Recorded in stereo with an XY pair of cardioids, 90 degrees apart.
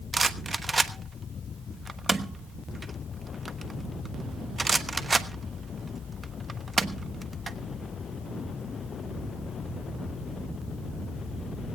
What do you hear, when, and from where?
0.1 s a rattle: 30° right, 1.2 m